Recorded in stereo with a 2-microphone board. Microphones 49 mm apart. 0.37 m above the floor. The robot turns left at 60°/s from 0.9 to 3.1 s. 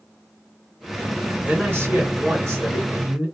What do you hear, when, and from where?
1.4 s a man speaking: 35° right, 2 m; by 3.2 s 135° right, 2 m